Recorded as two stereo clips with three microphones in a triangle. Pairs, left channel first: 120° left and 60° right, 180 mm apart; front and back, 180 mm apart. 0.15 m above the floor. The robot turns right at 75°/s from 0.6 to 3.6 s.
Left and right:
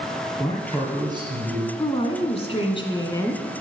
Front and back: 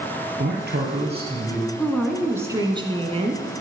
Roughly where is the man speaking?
Behind.